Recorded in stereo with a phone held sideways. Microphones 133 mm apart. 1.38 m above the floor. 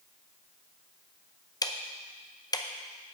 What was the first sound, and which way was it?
Ticking, 25° left (ahead or behind).